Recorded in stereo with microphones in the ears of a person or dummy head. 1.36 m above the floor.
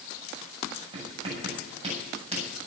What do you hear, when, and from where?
0.9 s writing: 35° right (ahead or behind), 7 m